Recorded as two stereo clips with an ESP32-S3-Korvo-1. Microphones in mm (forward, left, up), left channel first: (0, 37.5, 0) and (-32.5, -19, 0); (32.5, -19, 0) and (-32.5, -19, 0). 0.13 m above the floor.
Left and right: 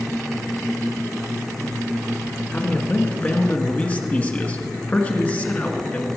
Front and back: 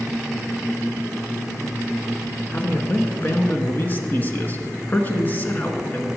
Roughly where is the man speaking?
Ahead left.